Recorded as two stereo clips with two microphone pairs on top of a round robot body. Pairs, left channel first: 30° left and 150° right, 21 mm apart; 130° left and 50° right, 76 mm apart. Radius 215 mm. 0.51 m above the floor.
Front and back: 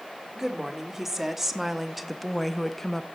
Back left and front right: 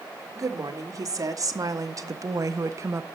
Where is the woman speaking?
85° right, 1.9 m; by 3.0 s 40° right, 0.9 m.